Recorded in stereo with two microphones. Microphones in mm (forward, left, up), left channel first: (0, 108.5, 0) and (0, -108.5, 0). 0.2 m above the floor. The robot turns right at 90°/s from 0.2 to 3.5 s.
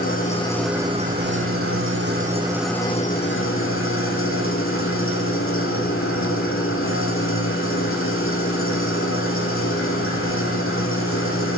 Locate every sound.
0.0 s an engine running: 140° left, 4.5 m; by 11.6 s 75° left, 4.5 m